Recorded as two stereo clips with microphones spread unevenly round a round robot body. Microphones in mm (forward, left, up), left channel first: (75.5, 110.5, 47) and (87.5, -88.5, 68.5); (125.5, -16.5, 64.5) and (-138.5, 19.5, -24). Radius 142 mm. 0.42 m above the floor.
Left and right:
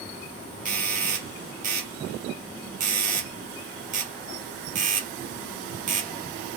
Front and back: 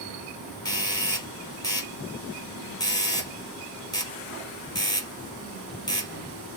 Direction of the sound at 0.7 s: 100° right.